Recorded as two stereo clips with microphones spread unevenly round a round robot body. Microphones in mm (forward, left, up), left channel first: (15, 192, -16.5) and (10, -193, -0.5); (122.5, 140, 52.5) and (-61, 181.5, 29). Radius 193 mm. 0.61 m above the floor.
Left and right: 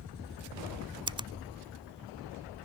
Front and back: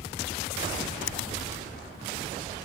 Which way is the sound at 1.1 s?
15° right.